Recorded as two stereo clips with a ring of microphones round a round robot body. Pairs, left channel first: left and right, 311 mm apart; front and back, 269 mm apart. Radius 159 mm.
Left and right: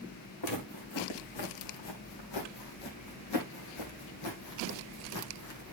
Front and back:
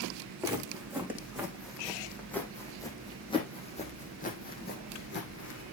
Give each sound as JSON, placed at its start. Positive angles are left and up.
{"t": 0.4, "sound": "footsteps", "azimuth_deg": 100, "distance_m": 3.5}